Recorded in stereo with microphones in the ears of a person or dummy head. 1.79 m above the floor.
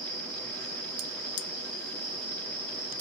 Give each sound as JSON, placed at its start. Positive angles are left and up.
{"t": 0.0, "sound": "an insect", "side_deg": 15, "distance_m": 1.4}